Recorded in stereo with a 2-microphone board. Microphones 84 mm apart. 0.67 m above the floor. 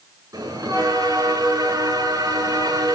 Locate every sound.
0.3 s a bell: 45° right (ahead or behind), 6.5 m